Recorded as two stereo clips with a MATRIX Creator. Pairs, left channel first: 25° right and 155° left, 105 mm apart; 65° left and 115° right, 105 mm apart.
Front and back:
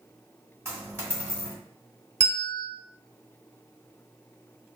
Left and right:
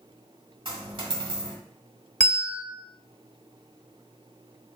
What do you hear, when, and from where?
0.7 s a dropped coin: 140° right, 1.2 m
2.2 s a bell: 150° left, 1.4 m